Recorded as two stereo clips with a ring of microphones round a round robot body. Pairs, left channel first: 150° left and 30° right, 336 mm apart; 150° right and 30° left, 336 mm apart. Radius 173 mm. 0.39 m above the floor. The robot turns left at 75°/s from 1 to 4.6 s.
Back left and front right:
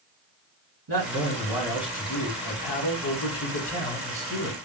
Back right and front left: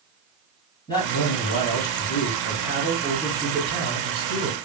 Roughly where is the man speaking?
Right.